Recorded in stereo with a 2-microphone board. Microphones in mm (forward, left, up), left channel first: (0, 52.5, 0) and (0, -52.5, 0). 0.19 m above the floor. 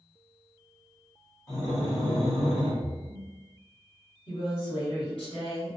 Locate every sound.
1.5 s breathing: 30° left (ahead or behind), 1.2 m
2.8 s a splash: 20° left (ahead or behind), 1.2 m
4.3 s a woman speaking: 50° left (ahead or behind), 1.8 m